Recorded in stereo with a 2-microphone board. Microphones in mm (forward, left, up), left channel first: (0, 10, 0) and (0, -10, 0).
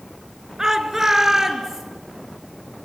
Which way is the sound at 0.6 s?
20° right (ahead or behind).